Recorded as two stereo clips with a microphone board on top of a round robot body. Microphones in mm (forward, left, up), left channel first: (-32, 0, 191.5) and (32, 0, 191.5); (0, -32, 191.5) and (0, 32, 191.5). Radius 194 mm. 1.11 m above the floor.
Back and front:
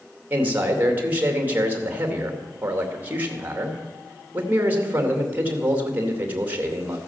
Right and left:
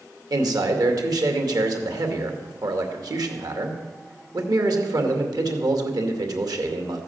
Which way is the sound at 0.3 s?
65° left.